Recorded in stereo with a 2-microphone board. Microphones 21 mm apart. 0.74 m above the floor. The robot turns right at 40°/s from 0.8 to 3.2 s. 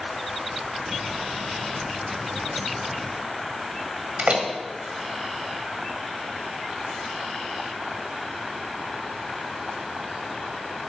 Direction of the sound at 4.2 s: 65° right (ahead or behind).